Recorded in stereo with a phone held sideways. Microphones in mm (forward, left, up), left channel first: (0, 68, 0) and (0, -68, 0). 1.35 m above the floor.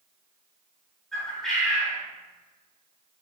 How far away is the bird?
About 1.2 m.